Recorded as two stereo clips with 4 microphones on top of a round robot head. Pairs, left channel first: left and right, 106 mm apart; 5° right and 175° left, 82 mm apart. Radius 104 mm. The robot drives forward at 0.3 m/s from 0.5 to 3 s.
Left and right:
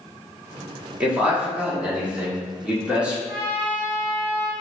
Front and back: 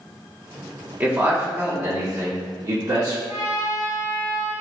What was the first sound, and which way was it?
A man speaking, 155° right.